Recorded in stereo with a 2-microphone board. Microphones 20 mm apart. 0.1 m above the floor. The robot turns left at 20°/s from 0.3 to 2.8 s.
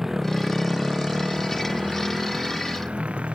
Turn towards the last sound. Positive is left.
turn(degrees=-85)